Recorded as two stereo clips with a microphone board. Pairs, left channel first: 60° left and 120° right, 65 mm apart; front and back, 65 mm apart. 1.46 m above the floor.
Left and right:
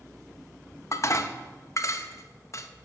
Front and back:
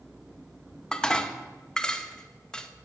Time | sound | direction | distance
0.9 | dishes clattering | 75° left | 0.9 m